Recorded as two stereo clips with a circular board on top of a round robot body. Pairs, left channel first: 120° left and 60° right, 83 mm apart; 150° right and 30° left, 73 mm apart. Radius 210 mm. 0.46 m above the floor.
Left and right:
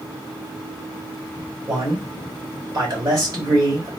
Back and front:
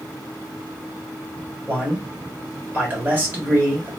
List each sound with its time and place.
1.7 s a man speaking: 30° right, 2 m